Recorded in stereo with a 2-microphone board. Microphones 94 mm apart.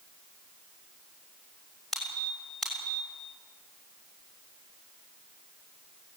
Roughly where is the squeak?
Centre.